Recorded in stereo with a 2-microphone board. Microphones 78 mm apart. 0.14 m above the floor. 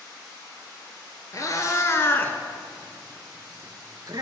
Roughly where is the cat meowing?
Left.